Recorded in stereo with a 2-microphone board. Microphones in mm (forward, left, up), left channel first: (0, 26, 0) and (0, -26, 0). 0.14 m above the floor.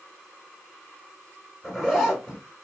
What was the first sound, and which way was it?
A zipper, centre (ahead or behind).